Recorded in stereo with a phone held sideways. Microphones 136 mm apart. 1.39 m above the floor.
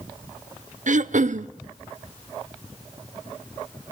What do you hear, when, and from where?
0.9 s throat clearing: 65° right (ahead or behind), 0.6 m